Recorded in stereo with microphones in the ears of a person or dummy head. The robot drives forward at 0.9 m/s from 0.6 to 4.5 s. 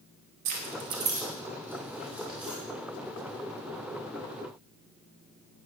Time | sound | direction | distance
0.5 | keys jangling | 40° right (ahead or behind) | 0.6 m